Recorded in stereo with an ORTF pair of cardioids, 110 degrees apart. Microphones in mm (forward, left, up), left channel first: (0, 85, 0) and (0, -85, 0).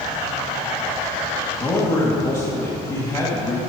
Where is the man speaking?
20° left, 3 m.